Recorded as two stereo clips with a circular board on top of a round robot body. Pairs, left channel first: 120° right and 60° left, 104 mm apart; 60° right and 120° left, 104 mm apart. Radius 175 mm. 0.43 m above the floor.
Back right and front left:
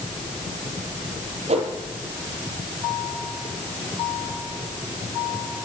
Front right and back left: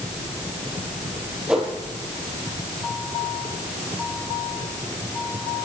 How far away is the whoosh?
About 4.5 m.